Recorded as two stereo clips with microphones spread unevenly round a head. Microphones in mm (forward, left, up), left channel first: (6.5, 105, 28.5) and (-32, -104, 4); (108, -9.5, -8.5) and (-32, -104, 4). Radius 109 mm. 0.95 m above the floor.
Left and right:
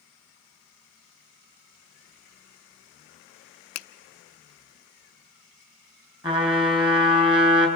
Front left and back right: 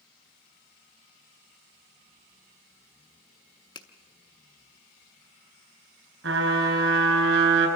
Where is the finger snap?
105° left, 0.7 m.